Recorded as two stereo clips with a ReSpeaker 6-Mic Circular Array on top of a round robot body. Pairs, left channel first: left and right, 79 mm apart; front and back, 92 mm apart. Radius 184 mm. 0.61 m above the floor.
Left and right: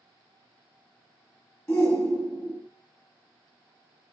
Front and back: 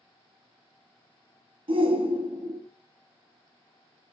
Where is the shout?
150° left, 1.8 m.